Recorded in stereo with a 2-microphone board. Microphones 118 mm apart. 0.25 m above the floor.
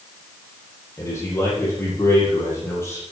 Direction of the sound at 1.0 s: 25° left (ahead or behind).